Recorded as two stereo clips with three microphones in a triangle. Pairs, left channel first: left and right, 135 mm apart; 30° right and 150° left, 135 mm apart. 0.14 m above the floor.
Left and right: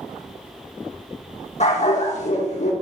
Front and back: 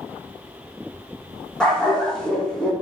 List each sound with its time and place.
1.6 s a dog barking: 55° left, 2.0 m